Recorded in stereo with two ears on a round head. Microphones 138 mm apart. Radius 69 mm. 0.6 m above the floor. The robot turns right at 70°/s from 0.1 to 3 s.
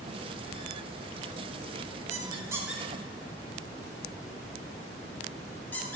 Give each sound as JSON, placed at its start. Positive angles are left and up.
{"t": 2.1, "sound": "a squeak", "side_deg": -45, "distance_m": 1.2}